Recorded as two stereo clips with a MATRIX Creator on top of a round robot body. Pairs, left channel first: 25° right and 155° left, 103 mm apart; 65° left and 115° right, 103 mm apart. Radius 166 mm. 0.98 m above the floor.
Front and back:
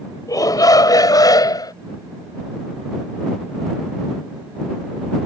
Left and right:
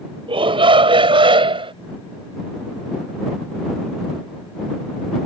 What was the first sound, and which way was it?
A shout, 80° right.